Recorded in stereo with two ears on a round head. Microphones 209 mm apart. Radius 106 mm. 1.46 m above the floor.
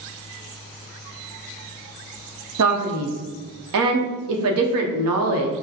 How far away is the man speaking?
About 0.8 m.